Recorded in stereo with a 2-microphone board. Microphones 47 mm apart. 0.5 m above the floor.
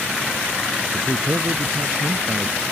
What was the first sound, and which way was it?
A man speaking, 75° right (ahead or behind).